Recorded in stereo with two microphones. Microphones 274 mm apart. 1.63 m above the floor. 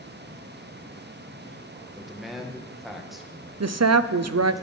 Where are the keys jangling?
I don't hear keys jangling.